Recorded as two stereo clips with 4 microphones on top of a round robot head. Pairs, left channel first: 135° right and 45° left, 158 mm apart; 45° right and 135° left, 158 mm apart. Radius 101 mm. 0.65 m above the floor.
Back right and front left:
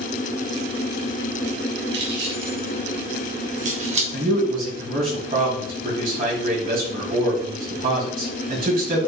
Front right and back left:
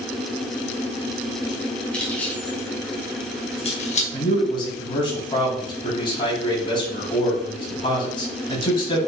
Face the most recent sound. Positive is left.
turn(degrees=10)